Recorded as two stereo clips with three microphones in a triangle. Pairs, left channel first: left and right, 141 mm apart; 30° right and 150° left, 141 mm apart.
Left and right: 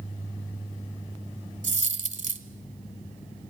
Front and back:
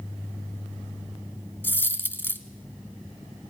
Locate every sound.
1.6 s a dropped coin: 105° right, 1.4 m